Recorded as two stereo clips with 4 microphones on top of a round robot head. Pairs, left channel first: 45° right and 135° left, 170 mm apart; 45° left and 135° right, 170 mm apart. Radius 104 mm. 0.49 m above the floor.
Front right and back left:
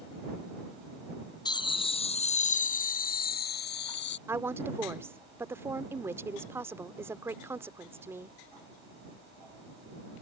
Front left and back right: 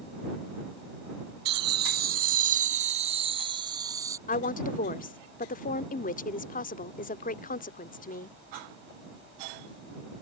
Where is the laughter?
110° right; by 4.2 s 60° right.